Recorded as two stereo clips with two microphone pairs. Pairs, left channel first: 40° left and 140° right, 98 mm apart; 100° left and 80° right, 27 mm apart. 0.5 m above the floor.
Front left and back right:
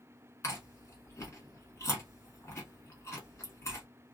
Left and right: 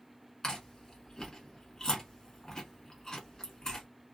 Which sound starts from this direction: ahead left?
Chewing, at 0.4 s.